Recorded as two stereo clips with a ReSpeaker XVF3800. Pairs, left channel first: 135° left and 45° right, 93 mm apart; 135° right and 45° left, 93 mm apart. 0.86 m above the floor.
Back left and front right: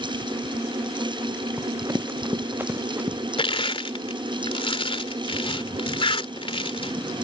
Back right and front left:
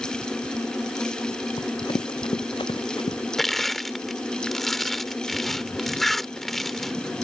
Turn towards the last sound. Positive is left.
turn(degrees=140)